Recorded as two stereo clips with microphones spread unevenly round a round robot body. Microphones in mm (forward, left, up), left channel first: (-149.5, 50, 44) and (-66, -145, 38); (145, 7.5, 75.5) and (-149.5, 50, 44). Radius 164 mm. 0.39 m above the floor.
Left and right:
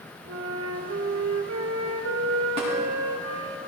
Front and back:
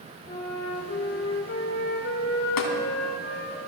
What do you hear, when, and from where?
0.3 s a flute: 65° right, 1.7 m
2.6 s tapping: 5° left, 2.5 m